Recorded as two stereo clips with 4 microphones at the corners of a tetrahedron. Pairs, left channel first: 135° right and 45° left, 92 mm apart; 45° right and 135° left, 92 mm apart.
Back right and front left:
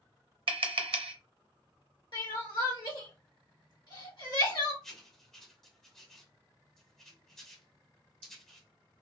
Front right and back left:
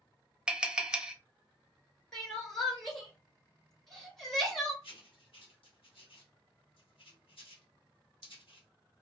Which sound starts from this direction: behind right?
Crying, at 2.1 s.